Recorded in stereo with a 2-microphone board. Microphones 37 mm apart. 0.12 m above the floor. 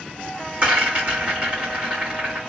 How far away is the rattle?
About 2 m.